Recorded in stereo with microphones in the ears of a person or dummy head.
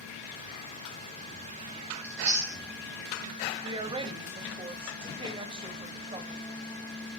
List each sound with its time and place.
2.0 s chewing: 20° right (ahead or behind), 2 m
3.6 s a woman speaking: 25° right (ahead or behind), 1.4 m